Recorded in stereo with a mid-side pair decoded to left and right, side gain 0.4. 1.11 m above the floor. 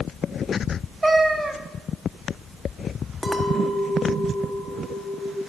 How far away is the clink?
About 0.8 m.